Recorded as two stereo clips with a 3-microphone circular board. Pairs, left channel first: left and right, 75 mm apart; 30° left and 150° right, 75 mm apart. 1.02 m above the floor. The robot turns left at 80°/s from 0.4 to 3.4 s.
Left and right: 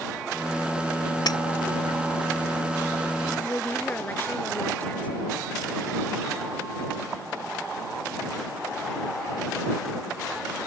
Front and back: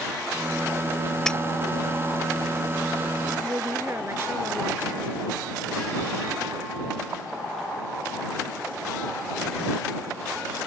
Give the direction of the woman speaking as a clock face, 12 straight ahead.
7 o'clock.